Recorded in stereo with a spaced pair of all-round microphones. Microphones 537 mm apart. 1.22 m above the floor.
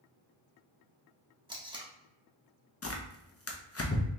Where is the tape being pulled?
10° right (ahead or behind), 0.8 m.